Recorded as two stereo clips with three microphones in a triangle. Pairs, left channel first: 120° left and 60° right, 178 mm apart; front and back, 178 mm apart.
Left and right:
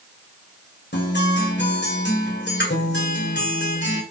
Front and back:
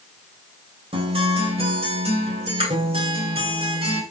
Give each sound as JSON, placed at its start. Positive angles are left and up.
{"t": 0.9, "sound": "a guitar", "azimuth_deg": 125, "distance_m": 1.7}